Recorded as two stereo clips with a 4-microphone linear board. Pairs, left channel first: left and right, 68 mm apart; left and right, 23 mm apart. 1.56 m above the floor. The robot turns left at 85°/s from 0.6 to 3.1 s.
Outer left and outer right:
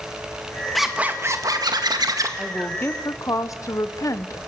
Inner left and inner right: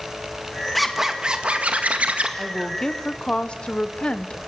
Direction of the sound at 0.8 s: Straight ahead.